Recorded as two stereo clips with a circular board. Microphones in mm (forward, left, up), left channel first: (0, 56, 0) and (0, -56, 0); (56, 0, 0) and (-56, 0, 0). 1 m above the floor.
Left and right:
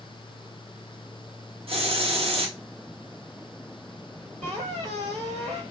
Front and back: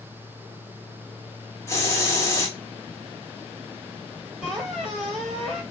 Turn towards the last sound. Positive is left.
turn(degrees=-95)